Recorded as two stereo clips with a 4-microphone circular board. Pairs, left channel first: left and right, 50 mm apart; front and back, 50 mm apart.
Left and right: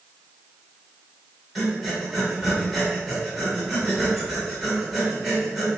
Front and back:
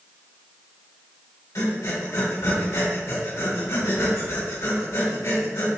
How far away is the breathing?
About 2 m.